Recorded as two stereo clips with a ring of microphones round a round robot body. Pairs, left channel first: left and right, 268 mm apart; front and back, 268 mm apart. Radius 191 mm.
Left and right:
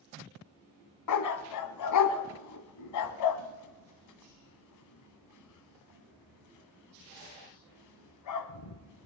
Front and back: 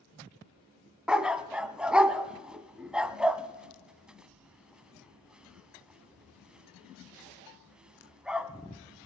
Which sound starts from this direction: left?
A dog barking, at 1.1 s.